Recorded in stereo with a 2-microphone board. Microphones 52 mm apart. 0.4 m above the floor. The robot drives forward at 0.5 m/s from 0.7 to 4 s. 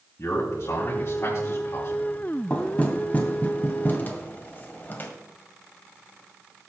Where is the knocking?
30° left (ahead or behind), 2.5 m; by 5.1 s 40° left (ahead or behind), 1.8 m.